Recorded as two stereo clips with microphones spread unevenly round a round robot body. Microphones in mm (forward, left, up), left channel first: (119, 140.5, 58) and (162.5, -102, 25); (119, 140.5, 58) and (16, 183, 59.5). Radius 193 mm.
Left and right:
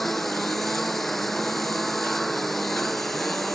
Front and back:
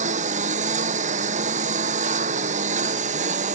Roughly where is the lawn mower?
Behind.